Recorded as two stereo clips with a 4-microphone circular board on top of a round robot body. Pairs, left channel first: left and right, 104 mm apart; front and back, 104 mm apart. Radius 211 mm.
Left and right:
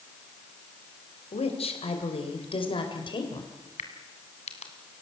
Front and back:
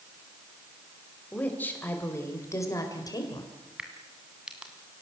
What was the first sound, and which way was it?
A woman speaking, 75° left.